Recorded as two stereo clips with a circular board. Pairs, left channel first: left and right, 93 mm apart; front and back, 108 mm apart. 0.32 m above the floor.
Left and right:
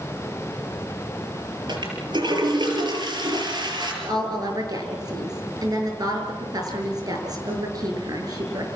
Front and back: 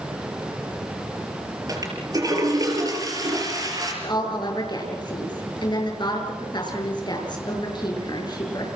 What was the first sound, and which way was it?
A toilet flushing, 125° right.